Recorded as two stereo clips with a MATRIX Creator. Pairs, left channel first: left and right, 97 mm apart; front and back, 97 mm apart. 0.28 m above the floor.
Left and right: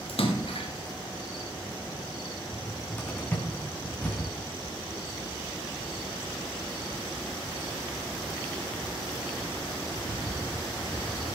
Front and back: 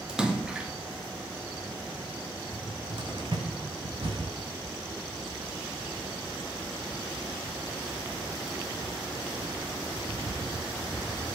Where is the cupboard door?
160° left, 3.5 m.